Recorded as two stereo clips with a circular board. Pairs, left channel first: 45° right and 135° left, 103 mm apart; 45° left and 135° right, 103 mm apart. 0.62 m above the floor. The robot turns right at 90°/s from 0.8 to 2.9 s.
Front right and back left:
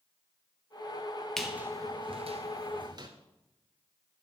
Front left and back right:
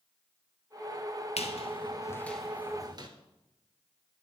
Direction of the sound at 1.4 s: 40° left.